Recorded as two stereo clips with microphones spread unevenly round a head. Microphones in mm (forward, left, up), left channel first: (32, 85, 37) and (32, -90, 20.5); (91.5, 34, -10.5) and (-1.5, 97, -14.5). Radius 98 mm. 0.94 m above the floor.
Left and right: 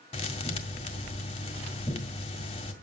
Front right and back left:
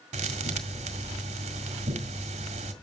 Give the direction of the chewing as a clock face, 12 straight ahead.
I don't hear chewing.